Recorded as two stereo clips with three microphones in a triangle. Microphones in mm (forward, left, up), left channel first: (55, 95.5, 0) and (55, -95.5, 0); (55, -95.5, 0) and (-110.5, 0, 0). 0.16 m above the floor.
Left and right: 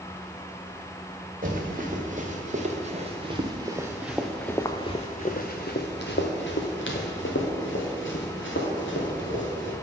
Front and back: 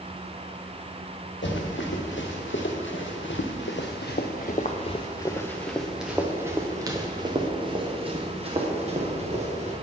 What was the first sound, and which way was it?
Running footsteps, 45° right.